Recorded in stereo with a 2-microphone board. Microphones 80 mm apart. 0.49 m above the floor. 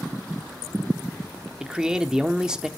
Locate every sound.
1.6 s a man speaking: 10° right (ahead or behind), 0.9 m